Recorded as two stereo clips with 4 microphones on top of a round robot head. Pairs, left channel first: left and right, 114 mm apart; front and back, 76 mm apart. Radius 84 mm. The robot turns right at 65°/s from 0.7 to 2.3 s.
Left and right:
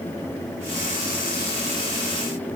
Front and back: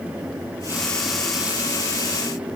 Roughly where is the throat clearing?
I don't hear throat clearing.